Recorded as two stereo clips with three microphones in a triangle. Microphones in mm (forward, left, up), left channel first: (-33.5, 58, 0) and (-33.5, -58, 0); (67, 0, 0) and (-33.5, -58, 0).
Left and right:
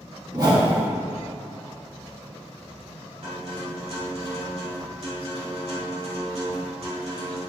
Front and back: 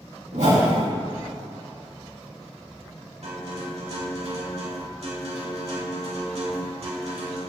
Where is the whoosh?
145° right, 2.5 m.